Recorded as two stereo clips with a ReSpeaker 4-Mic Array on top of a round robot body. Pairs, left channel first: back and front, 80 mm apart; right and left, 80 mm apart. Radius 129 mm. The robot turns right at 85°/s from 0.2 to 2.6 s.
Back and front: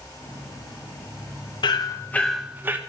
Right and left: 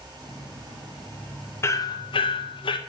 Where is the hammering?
150° right, 0.6 m; by 2.8 s 70° right, 0.6 m.